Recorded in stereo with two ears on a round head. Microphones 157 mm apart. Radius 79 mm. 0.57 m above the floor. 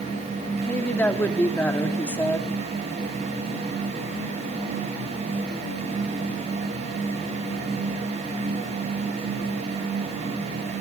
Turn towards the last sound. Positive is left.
turn(degrees=10)  # may be behind; listen again after turning